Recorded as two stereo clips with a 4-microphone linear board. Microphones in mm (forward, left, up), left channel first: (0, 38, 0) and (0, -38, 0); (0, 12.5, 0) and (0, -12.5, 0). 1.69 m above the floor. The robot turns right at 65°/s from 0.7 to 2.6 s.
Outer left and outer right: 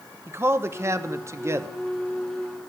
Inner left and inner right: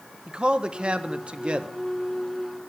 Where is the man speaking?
120° right, 0.6 m; by 1.7 s 55° right, 0.6 m.